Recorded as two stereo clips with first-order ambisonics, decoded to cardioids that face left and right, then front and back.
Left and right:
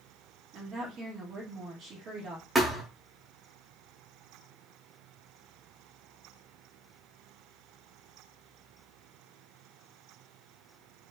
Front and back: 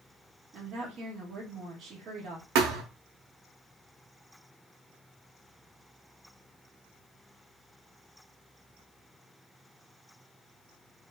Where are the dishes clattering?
No dishes clattering in this recording.